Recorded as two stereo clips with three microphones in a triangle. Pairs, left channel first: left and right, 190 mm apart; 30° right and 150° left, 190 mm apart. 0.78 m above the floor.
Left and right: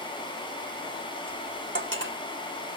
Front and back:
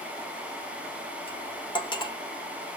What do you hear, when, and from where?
1.3 s cutlery clinking: 95° right, 1.1 m